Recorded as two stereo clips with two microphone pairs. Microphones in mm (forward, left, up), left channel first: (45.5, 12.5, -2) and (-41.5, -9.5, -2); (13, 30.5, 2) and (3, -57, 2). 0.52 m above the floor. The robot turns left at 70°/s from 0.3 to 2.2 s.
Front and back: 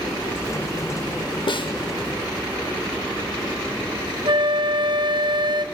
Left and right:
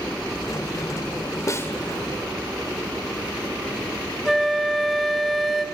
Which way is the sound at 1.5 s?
35° left.